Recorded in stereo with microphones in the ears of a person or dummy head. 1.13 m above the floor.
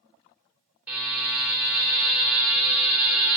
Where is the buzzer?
10° right (ahead or behind), 3 m.